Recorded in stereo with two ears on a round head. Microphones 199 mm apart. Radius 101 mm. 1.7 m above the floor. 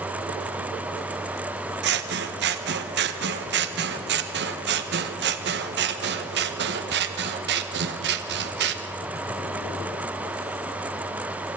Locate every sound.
1.8 s scissors: 55° right (ahead or behind), 1.1 m